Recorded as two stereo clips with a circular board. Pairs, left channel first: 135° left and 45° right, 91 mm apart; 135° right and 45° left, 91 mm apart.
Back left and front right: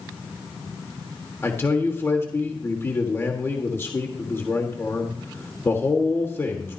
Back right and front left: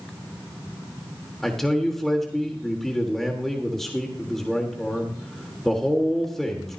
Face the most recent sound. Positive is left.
turn(degrees=145)